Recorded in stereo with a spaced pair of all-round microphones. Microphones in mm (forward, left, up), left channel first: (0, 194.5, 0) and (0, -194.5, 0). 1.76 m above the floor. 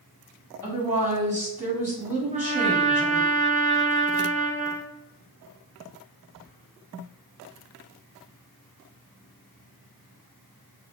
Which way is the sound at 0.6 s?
5° right (ahead or behind).